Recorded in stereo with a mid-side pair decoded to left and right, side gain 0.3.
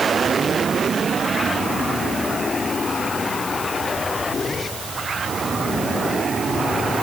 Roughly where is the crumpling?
I don't hear crumpling.